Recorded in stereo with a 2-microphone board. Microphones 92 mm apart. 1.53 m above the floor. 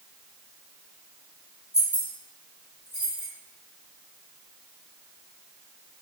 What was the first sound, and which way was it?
Keys jangling, 35° left (ahead or behind).